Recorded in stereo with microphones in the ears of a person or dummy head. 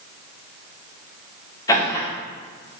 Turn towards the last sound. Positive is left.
turn(degrees=20)  # may be behind; listen again after turning